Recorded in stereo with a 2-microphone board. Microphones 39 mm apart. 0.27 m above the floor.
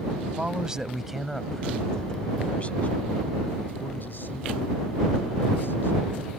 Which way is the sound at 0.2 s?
30° right (ahead or behind).